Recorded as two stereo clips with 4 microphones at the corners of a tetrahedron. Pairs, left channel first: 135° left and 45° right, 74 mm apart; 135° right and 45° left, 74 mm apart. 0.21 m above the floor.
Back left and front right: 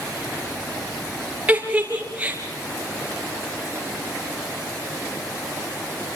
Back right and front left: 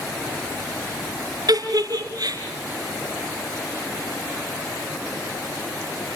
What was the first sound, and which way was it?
A giggle, 25° left.